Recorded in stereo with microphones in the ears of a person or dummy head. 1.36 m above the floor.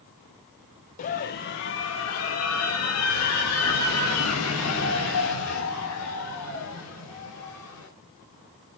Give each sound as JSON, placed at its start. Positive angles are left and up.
{"t": 1.0, "sound": "a scream", "side_deg": 40, "distance_m": 1.3}